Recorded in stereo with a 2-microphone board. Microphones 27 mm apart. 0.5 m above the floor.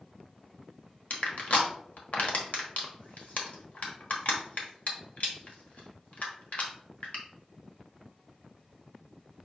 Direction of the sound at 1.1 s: 65° left (ahead or behind).